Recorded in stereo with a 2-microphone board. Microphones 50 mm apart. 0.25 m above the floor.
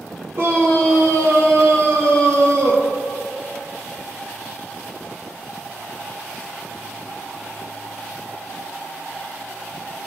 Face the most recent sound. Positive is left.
turn(degrees=-75)  # may be behind; listen again after turning